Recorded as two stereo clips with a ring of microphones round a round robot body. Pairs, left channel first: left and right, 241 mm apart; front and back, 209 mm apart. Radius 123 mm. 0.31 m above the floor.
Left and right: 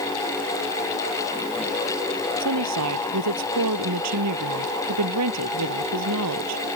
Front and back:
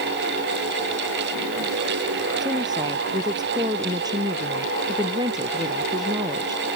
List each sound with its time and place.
2.4 s a woman speaking: 105° right